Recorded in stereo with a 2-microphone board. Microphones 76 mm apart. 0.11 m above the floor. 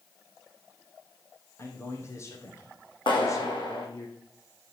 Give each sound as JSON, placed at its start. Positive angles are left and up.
{"t": 1.6, "sound": "a man speaking", "side_deg": 35, "distance_m": 4.5}
{"t": 3.1, "sound": "a clap", "side_deg": 75, "distance_m": 5.0}